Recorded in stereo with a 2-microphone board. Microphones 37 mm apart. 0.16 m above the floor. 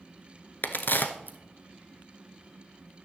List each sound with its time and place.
0.6 s a crack: 60° left (ahead or behind), 1.0 m